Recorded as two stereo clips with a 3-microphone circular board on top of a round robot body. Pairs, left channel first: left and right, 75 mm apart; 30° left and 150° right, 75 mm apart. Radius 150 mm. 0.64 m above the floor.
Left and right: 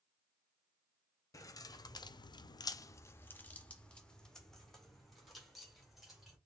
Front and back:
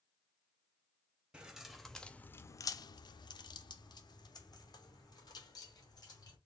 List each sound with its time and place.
1.3 s keys jangling: 135° left, 0.7 m; by 6.4 s 5° right, 2 m